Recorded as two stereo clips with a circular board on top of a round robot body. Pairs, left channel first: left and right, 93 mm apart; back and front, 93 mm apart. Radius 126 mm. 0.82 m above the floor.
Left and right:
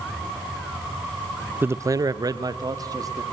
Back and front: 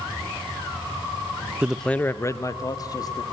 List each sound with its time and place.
1.6 s a man speaking: 55° right, 0.6 m; by 3.2 s 135° right, 1.9 m